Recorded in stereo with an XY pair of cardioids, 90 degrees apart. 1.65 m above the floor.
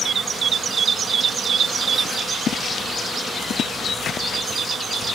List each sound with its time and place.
2.5 s footsteps: 60° left